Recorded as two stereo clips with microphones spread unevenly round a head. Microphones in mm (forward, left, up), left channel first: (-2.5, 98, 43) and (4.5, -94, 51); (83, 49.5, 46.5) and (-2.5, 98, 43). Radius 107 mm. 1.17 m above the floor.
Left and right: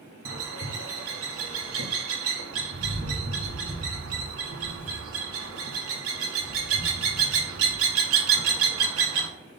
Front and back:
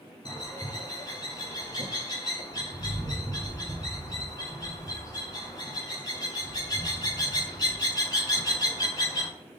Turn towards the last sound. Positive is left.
turn(degrees=-90)